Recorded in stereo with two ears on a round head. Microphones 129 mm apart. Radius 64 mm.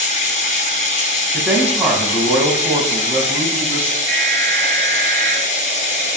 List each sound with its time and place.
0.0 s running water: 55° left (ahead or behind), 3 m
1.3 s a man speaking: 15° right (ahead or behind), 5 m
4.1 s an alarm: 5° right (ahead or behind), 8.5 m